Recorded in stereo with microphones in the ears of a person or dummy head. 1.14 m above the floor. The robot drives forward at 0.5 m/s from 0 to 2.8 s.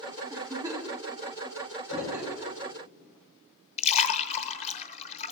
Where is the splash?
40° left (ahead or behind), 1.0 m.